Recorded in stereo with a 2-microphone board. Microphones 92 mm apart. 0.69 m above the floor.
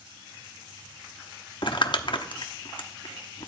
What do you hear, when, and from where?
1.6 s crumpling: 60° left (ahead or behind), 1.0 m